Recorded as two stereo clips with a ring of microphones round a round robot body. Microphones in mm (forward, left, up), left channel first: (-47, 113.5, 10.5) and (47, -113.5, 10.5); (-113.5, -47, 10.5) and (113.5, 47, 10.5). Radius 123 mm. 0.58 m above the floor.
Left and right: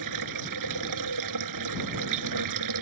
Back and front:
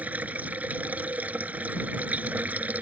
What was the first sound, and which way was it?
Running water, 60° right.